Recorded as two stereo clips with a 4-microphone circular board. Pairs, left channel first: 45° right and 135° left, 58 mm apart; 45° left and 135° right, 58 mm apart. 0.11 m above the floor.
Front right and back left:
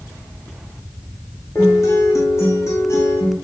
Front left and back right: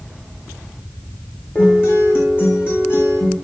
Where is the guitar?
5° right, 4.5 m.